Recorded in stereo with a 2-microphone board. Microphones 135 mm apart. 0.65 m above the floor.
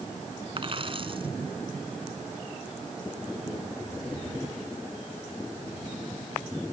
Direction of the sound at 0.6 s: 40° right (ahead or behind).